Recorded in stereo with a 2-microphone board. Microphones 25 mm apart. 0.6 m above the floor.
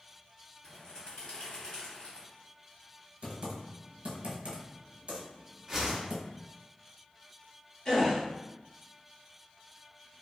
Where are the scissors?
No scissors in this recording.